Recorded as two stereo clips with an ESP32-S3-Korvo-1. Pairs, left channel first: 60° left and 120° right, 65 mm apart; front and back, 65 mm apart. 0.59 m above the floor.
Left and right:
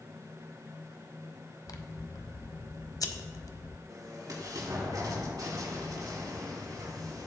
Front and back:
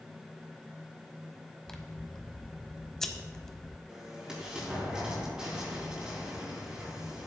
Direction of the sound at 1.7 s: 80° left.